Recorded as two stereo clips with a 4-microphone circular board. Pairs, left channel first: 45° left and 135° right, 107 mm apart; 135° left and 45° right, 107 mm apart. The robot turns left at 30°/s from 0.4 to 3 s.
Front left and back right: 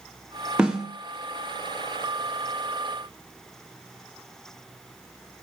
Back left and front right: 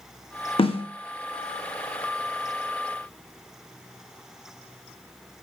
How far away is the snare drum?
About 0.8 m.